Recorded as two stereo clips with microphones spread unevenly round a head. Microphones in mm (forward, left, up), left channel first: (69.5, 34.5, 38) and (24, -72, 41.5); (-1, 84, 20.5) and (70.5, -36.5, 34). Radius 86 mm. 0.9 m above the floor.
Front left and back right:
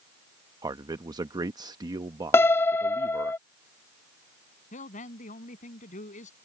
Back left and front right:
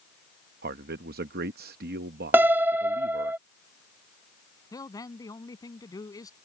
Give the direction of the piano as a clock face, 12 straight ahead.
12 o'clock.